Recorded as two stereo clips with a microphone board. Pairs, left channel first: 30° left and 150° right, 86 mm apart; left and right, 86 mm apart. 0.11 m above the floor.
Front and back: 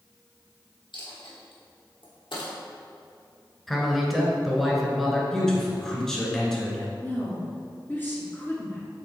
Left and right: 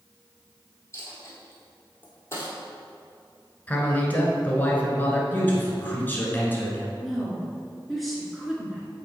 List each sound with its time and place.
0.9 s a dropped coin: 35° left, 2 m
3.7 s a man speaking: 115° left, 1.2 m
5.3 s a man speaking: 100° left, 1.4 m
7.0 s a woman speaking: straight ahead, 1.7 m